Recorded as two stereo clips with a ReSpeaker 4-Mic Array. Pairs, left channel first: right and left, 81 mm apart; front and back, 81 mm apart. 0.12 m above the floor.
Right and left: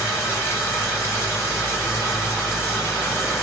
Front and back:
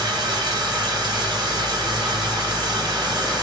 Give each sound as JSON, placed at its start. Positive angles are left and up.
{"t": 0.0, "sound": "running water", "azimuth_deg": -155, "distance_m": 1.5}